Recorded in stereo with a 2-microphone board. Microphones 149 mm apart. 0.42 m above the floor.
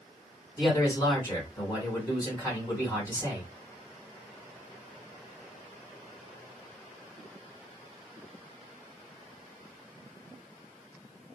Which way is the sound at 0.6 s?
25° left (ahead or behind).